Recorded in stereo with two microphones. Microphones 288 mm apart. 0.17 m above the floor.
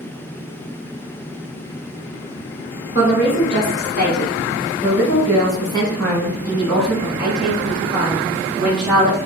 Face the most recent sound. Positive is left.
turn(degrees=-20)  # may be behind; listen again after turning